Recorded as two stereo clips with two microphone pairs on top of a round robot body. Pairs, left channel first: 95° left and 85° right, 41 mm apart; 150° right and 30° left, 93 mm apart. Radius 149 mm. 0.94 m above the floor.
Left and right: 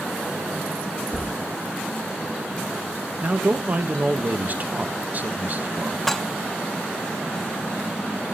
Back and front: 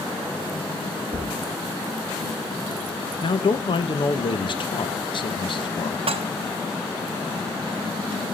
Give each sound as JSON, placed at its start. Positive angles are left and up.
{"t": 1.1, "sound": "a thud", "azimuth_deg": 35, "distance_m": 0.6}
{"t": 3.2, "sound": "a man speaking", "azimuth_deg": -130, "distance_m": 1.6}
{"t": 6.1, "sound": "dishes clattering", "azimuth_deg": 10, "distance_m": 0.7}